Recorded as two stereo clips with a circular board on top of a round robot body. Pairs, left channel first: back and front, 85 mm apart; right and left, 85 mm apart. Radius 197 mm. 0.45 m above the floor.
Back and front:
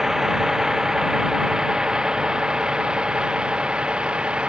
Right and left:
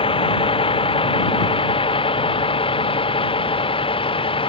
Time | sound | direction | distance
0.0 | a vehicle | 85° right | ?